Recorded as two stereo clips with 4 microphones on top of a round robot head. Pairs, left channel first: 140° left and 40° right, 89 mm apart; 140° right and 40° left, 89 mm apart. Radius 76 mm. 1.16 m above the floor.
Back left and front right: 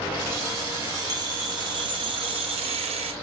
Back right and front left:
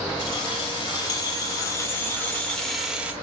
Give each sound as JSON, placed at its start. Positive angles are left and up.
{"t": 0.2, "sound": "keys jangling", "azimuth_deg": -100, "distance_m": 4.0}